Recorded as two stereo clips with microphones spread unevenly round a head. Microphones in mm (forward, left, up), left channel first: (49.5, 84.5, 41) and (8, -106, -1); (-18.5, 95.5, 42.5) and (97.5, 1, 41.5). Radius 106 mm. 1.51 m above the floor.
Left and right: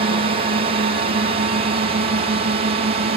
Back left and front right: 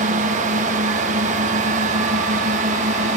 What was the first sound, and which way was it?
A drone, 60° right.